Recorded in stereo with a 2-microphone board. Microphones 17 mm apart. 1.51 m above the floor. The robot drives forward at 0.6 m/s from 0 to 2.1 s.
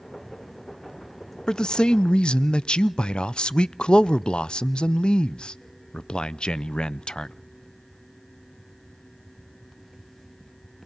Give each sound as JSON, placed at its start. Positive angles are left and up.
{"t": 1.5, "sound": "a man speaking", "side_deg": 45, "distance_m": 0.6}